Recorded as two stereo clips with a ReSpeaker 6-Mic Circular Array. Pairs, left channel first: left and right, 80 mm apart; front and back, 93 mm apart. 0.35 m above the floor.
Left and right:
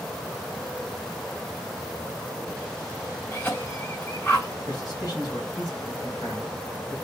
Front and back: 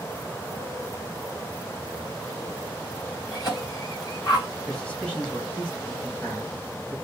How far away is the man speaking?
About 2.5 m.